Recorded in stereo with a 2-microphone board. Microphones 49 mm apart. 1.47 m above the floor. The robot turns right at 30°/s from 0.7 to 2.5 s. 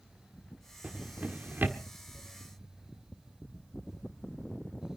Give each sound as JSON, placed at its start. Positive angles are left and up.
{"t": 0.8, "sound": "a drawer", "side_deg": -25, "distance_m": 1.5}